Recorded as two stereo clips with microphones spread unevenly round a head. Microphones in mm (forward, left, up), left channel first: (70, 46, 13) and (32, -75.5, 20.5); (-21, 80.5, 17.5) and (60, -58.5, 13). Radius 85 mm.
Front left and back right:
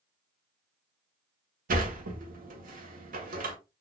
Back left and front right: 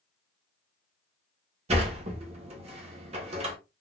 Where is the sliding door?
110° right, 1.0 m.